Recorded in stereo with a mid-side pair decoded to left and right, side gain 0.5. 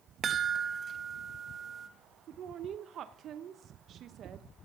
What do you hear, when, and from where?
0.2 s a chime: 45° right, 1.0 m
2.3 s a woman speaking: 55° right, 0.7 m